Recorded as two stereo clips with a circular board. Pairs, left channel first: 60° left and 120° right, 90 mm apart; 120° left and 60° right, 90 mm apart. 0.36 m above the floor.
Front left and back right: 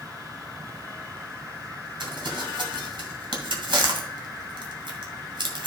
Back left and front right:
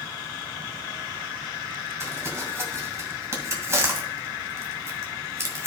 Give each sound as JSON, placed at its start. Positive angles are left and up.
{"t": 2.0, "sound": "crumpling", "azimuth_deg": -115, "distance_m": 1.9}